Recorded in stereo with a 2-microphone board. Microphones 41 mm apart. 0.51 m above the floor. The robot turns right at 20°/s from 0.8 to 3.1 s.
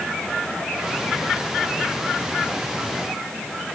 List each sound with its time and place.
Only background noise.